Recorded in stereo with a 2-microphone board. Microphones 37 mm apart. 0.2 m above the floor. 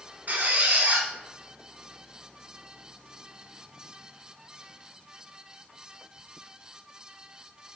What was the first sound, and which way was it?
A squeak, 50° right (ahead or behind).